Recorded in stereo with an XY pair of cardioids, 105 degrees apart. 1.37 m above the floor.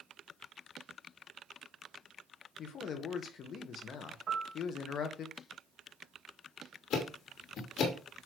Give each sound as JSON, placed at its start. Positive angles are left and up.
{"t": 2.6, "sound": "a man speaking", "azimuth_deg": 60, "distance_m": 1.5}
{"t": 4.3, "sound": "a piano", "azimuth_deg": -50, "distance_m": 3.5}
{"t": 6.9, "sound": "ticking", "azimuth_deg": 70, "distance_m": 2.5}